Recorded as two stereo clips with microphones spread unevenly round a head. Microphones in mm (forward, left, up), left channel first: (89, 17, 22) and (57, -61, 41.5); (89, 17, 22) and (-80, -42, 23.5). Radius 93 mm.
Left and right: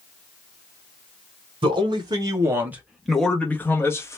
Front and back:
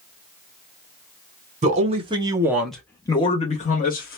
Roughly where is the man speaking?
Behind right.